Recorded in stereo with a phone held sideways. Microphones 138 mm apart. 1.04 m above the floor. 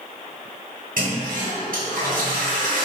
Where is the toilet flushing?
75° right (ahead or behind), 1.2 m.